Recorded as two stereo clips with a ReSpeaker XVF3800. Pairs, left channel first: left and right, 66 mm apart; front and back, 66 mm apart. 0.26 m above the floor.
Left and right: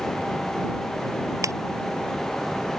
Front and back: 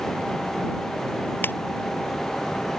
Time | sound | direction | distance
1.4 | a ringtone | 55° right | ?